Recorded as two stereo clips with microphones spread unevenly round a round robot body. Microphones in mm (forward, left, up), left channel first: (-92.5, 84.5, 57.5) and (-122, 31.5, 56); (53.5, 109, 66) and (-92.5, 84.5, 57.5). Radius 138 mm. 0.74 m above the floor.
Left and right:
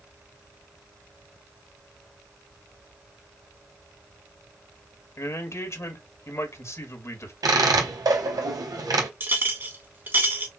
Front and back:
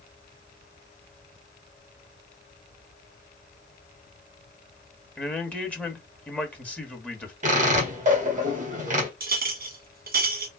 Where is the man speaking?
95° left, 1.7 m.